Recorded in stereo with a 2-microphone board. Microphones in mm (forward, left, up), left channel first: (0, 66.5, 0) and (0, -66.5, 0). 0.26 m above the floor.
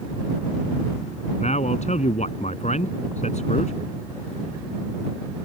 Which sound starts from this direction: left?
A man speaking, at 1.4 s.